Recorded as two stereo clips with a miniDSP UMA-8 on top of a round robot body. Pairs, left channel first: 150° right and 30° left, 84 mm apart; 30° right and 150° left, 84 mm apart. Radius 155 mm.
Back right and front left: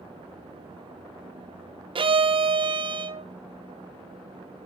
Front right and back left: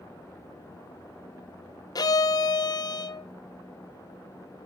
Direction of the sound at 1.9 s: 15° left.